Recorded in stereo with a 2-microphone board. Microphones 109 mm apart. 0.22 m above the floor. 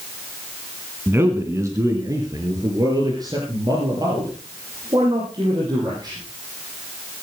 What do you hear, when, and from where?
1.1 s a man speaking: 20° right (ahead or behind), 2 m; by 6.2 s 40° right (ahead or behind), 9.5 m